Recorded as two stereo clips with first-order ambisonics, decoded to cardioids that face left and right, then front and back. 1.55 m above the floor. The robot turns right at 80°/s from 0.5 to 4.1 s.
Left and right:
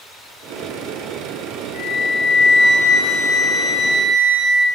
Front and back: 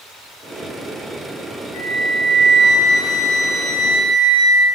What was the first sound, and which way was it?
A flute, 70° left.